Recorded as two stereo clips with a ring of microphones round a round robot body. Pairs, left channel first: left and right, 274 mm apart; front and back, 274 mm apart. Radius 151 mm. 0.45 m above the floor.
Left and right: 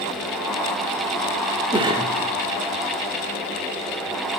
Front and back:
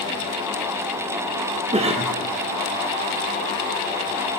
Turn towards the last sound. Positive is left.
turn(degrees=-140)